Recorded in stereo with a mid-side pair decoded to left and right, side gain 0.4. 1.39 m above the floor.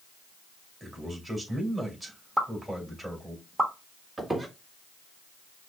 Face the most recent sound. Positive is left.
turn(degrees=-20)